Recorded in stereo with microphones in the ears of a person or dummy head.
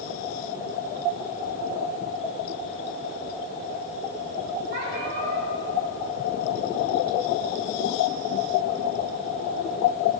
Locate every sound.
4.7 s a cat meowing: 60° right (ahead or behind), 3.5 m